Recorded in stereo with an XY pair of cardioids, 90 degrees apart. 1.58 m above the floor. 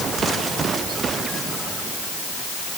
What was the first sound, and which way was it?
Only background noise.